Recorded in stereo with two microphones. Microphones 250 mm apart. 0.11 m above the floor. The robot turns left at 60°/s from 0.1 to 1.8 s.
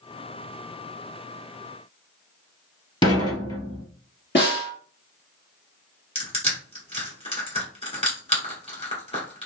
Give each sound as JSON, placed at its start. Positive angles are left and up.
{"t": 3.0, "sound": "dishes clattering", "side_deg": 20, "distance_m": 1.4}
{"t": 4.3, "sound": "a snare drum", "side_deg": 45, "distance_m": 2.0}
{"t": 6.2, "sound": "crushing", "side_deg": 20, "distance_m": 1.7}